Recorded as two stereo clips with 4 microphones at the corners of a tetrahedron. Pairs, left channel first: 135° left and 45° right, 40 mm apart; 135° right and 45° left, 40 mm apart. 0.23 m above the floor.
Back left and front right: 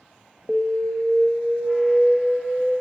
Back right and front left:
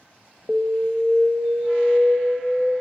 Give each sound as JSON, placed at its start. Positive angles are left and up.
{"t": 0.5, "sound": "an alarm", "azimuth_deg": 10, "distance_m": 0.8}